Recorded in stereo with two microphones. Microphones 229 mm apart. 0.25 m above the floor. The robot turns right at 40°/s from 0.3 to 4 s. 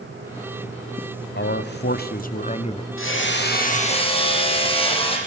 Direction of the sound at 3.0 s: 115° left.